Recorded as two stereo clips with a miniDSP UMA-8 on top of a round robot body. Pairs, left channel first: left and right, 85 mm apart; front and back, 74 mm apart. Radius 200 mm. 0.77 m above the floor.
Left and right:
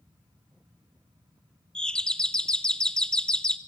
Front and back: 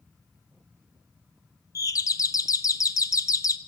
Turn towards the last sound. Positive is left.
turn(degrees=10)